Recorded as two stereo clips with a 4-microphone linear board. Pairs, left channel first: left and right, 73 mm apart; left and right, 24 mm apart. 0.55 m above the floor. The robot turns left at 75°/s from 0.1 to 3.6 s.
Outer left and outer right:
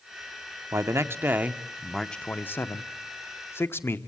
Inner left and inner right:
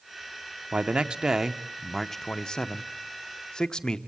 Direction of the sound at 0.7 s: 90° right.